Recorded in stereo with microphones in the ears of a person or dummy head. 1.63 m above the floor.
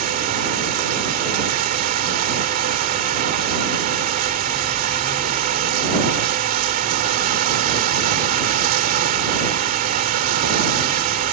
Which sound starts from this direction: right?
Running water, at 0.0 s.